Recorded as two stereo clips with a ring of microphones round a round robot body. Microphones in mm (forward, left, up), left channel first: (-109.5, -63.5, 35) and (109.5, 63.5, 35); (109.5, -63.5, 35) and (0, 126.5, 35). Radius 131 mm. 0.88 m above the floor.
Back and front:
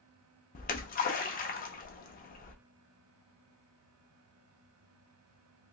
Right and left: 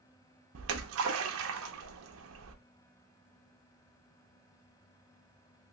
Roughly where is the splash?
Behind left.